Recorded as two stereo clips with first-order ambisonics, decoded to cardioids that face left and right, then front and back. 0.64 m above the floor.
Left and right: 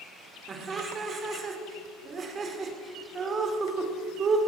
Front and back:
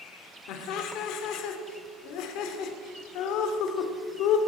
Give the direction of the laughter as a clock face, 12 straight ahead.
1 o'clock.